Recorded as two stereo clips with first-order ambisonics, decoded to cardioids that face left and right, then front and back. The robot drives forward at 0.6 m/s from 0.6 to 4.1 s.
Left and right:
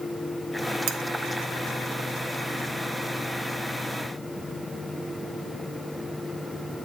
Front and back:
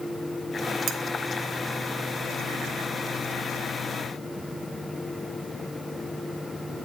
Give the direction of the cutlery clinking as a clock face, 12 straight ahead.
4 o'clock.